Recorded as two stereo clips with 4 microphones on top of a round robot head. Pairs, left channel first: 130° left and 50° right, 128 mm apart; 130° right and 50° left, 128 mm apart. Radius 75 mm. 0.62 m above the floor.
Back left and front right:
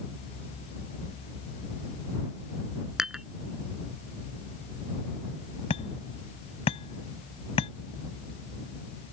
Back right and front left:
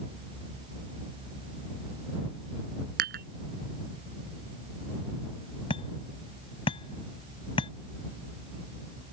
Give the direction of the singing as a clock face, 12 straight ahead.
I don't hear singing.